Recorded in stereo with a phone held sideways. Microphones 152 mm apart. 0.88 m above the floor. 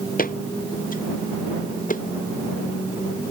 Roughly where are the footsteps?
Left.